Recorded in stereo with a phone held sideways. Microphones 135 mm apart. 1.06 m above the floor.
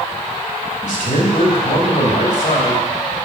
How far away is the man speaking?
About 2.5 m.